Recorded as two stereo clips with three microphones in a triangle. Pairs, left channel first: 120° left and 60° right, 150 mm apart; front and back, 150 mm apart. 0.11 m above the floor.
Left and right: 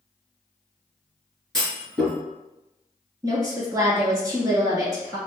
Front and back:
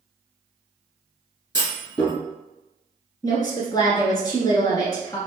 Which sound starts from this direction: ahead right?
A woman speaking, at 3.2 s.